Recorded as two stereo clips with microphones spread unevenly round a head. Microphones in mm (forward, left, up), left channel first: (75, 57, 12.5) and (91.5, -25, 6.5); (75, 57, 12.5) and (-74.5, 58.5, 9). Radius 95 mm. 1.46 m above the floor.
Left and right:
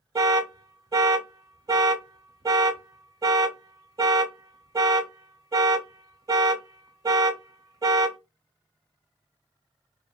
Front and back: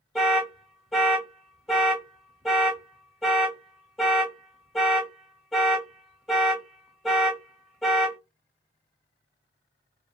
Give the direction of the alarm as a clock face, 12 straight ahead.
3 o'clock.